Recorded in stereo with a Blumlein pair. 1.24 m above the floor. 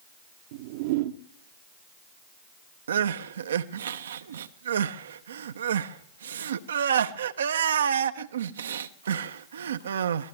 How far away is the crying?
About 0.7 m.